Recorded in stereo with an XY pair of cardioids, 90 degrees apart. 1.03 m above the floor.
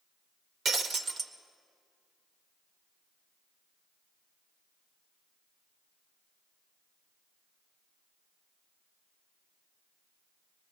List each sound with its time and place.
0.7 s breaking glass: 55° right, 2.0 m